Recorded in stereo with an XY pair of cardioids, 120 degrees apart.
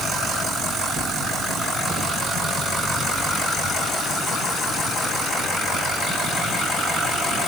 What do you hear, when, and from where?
Only background noise.